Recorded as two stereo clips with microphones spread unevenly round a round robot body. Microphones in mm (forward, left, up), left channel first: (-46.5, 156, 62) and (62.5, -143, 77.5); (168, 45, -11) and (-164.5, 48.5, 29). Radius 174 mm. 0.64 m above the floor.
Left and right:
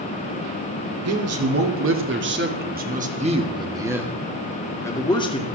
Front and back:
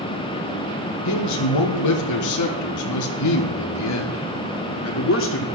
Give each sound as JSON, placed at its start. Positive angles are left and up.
{"t": 1.1, "sound": "a man speaking", "azimuth_deg": -35, "distance_m": 2.5}